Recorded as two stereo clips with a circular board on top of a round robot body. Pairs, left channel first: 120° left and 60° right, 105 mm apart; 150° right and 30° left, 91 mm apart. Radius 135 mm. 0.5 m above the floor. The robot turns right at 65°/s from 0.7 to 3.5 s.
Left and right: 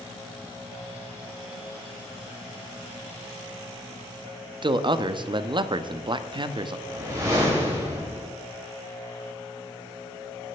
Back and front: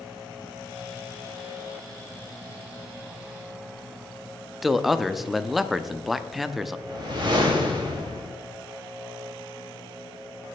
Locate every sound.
4.6 s a man speaking: 60° right, 0.9 m
6.9 s a whoosh: straight ahead, 3.5 m